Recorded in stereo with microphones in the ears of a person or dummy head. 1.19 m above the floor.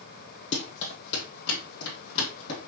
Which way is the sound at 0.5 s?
60° left (ahead or behind).